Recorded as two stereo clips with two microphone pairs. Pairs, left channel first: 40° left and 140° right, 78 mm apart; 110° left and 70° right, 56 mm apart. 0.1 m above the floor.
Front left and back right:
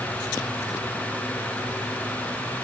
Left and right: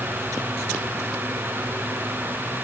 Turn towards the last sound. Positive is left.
No sound to turn to.